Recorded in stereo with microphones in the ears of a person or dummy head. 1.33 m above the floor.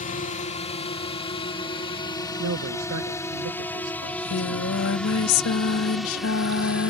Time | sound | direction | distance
0.0 | a drone | 35° left (ahead or behind) | ?
2.4 | a man speaking | 80° right | ?
4.0 | singing | 75° left (ahead or behind) | ?